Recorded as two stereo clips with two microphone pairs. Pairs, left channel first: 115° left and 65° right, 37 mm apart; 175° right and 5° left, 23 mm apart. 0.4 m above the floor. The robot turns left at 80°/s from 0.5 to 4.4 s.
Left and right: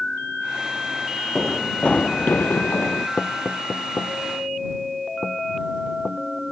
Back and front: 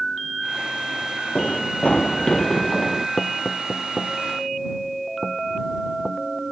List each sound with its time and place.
1.4 s running footsteps: 155° right; by 3.1 s 80° left
3.2 s knocking: 175° left; by 6.2 s 80° left